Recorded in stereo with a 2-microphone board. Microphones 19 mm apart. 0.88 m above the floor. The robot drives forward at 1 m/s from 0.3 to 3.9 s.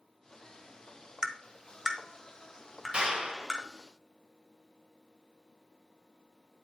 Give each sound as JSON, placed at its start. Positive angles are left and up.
{"t": 1.2, "sound": "tapping", "side_deg": -35, "distance_m": 0.9}
{"t": 2.9, "sound": "a clap", "side_deg": -55, "distance_m": 3.0}